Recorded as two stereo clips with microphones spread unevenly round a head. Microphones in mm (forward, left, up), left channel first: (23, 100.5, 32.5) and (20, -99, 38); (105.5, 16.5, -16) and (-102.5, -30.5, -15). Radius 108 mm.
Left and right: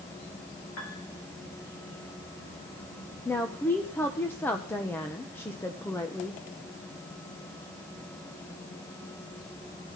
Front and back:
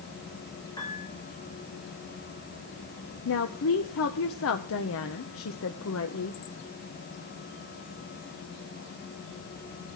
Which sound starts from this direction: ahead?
A woman speaking, at 3.2 s.